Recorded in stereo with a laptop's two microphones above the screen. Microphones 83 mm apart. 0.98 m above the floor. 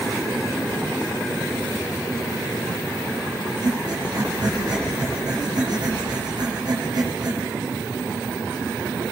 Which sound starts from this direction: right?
Breathing, at 3.6 s.